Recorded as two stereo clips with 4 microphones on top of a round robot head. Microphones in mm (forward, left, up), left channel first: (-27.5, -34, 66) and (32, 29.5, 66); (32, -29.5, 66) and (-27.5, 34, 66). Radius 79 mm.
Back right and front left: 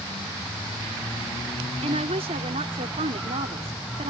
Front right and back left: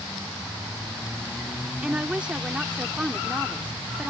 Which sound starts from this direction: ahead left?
A woman speaking, at 1.8 s.